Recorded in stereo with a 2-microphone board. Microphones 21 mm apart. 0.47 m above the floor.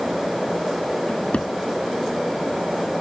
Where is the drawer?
70° left (ahead or behind).